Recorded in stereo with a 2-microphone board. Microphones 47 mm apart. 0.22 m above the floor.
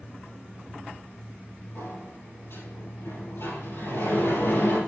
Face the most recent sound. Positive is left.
turn(degrees=70)  # may be behind; listen again after turning